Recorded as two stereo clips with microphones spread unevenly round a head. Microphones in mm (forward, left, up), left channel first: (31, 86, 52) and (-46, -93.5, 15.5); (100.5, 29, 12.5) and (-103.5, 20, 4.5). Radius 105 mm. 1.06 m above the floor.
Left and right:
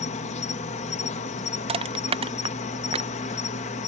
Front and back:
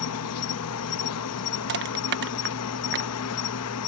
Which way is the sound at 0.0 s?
10° left.